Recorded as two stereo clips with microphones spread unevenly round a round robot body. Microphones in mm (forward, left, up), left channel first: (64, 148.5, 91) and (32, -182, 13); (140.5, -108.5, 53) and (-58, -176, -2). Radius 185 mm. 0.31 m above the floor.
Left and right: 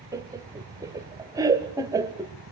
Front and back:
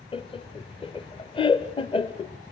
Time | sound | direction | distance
0.1 | laughter | 50° right | 1.4 m